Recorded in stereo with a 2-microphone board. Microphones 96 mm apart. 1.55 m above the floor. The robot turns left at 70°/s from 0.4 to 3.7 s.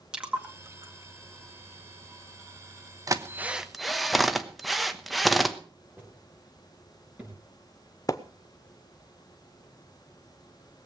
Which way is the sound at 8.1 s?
35° left (ahead or behind).